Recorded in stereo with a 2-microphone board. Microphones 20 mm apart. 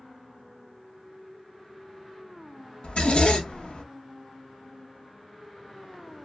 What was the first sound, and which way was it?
A zipper, 60° left (ahead or behind).